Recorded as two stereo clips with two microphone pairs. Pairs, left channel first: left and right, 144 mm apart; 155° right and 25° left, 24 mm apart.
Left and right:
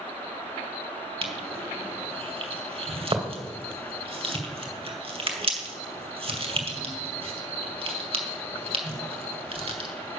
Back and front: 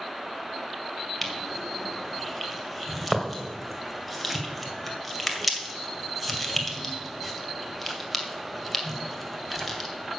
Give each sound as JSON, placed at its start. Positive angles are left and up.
{"t": 1.2, "sound": "crushing", "azimuth_deg": -65, "distance_m": 1.9}